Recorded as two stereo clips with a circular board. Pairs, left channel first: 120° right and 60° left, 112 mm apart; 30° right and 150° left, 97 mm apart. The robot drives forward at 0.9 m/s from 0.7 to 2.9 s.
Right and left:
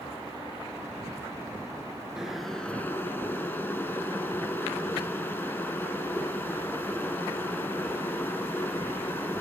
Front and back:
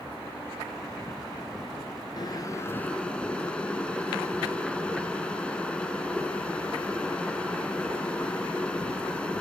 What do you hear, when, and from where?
2.2 s boiling: 20° right, 0.9 m; by 9.4 s 90° right, 0.7 m